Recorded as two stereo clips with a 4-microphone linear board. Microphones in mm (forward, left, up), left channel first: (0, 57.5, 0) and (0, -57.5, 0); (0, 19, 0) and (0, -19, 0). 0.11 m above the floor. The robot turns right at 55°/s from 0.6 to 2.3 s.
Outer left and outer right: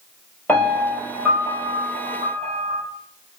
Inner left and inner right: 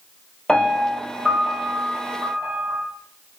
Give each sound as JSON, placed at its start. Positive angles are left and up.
{"t": 0.5, "sound": "a piano", "azimuth_deg": 165, "distance_m": 1.7}